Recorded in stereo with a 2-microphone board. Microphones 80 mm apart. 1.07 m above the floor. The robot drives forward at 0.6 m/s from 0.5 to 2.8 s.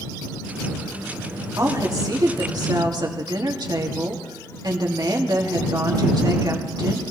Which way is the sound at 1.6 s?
45° right (ahead or behind).